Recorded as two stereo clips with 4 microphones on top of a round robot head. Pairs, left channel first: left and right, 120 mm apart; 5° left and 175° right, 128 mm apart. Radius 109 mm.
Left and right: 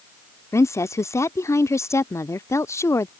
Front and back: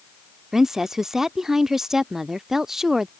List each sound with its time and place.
0.5 s a woman speaking: 100° left